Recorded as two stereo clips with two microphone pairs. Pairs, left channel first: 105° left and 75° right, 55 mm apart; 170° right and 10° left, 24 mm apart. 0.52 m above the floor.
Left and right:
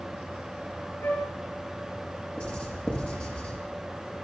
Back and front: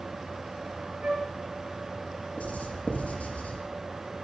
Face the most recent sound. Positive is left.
turn(degrees=170)